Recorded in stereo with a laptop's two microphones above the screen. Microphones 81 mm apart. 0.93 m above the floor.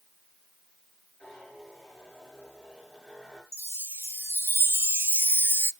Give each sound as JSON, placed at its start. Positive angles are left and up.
{"t": 1.2, "sound": "a zipper", "side_deg": 5, "distance_m": 8.0}
{"t": 3.5, "sound": "a chime", "side_deg": -30, "distance_m": 0.6}